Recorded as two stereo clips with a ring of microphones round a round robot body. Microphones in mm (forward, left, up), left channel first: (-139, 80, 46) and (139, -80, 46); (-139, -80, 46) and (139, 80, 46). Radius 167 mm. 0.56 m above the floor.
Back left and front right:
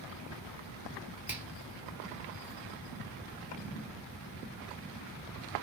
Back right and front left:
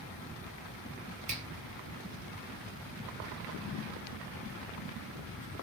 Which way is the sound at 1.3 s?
45° left.